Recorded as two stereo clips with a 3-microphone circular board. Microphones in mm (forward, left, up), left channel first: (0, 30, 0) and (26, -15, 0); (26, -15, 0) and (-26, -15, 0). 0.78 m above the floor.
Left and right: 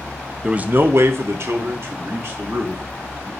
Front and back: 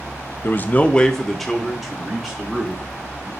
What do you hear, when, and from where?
0.4 s a man speaking: 10° left, 0.5 m; by 3.3 s 105° right, 2.5 m